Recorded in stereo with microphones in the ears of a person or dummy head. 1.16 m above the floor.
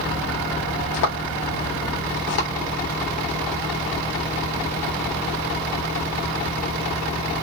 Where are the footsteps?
65° left (ahead or behind), 3.5 m; by 2.5 s 55° left (ahead or behind), 3.5 m.